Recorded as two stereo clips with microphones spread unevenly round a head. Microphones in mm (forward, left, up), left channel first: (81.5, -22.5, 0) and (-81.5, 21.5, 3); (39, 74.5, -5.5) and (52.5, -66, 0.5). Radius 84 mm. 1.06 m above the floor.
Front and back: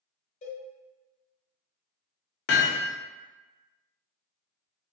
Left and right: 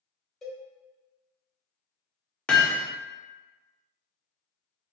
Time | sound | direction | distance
0.4 | a cowbell | 5° left | 1.0 m
2.5 | hammering | 10° left | 0.6 m